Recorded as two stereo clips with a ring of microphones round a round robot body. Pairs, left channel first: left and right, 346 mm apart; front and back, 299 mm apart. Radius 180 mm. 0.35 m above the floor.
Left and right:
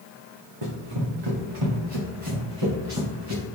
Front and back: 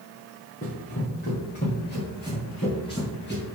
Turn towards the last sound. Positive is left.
turn(degrees=-60)